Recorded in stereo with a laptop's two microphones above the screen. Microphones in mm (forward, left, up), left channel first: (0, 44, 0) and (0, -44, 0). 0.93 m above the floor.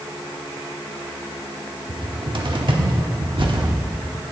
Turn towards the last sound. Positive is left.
turn(degrees=-60)  # may be behind; listen again after turning